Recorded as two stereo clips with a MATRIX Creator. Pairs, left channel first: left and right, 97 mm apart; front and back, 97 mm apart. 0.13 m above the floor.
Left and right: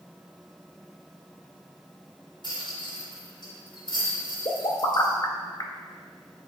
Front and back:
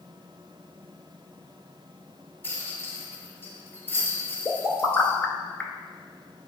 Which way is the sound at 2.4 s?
65° left.